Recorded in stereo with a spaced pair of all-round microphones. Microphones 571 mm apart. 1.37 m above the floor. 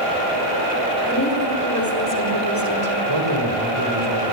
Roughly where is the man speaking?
Right.